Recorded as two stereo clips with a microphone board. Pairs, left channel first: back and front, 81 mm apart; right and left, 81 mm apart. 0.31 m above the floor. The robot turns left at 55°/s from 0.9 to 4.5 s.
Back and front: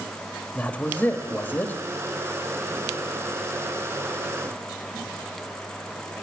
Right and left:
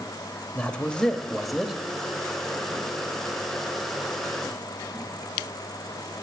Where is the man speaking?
145° right, 1.2 m; by 1.7 s 170° left, 1.2 m.